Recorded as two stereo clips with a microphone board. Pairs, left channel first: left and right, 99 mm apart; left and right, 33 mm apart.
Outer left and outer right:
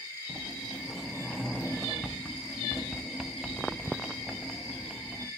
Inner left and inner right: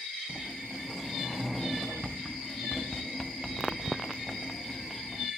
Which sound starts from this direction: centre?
A sliding door, at 0.3 s.